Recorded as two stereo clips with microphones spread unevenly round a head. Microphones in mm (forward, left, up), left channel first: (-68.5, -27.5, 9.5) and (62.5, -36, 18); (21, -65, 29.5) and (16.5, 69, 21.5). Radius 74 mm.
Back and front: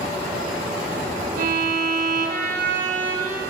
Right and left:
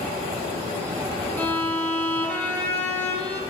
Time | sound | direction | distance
1.4 | a violin | 10° right | 1.3 m